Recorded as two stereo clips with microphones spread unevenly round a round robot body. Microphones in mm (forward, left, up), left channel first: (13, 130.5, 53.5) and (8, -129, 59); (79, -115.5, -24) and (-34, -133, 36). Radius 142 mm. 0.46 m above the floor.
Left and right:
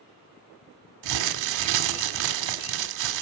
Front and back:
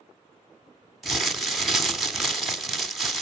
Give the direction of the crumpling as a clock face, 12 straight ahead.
3 o'clock.